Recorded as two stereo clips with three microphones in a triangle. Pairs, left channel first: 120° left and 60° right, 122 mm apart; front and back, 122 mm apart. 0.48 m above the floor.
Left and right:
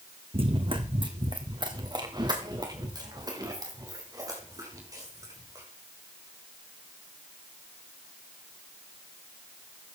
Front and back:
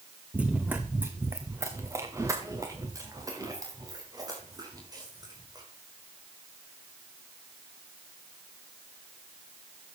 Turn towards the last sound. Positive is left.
turn(degrees=-125)